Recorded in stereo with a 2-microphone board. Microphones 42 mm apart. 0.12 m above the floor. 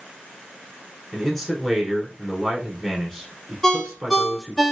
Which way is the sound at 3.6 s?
10° left (ahead or behind).